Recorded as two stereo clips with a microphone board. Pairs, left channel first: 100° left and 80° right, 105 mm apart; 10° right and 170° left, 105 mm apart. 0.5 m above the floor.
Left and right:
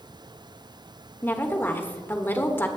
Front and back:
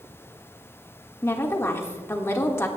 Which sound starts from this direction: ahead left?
A woman speaking, at 1.2 s.